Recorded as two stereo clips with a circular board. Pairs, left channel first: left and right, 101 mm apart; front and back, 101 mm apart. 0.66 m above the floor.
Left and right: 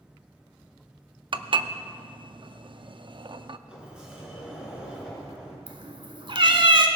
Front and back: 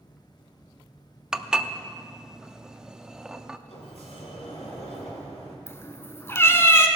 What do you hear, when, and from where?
1.3 s dishes clattering: 100° right, 0.5 m
3.7 s a sliding door: 10° right, 3.5 m
5.7 s a cat meowing: 65° right, 1.1 m